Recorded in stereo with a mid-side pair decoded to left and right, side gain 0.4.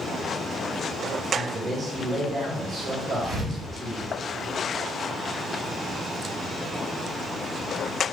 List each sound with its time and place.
1.3 s a man speaking: 60° right, 3 m
3.2 s a thud: 65° right, 3 m